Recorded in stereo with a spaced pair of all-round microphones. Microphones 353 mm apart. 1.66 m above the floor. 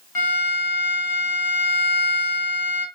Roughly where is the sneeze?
No sneeze in this recording.